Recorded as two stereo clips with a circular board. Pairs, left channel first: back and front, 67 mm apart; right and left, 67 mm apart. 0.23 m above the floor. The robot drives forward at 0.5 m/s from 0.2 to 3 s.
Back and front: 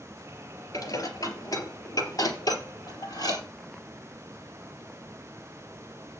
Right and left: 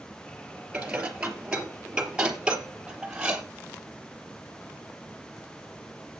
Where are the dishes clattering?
165° left, 3 m; by 3.4 s 170° left, 4 m.